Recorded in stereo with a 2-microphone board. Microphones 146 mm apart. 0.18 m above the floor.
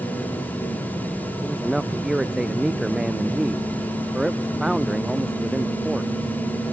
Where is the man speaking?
Centre (ahead or behind).